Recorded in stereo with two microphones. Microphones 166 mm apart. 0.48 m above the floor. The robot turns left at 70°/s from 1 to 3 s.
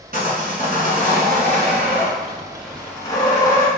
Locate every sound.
0.1 s sawing: 60° right, 1.3 m; by 3.7 s 160° left, 1.3 m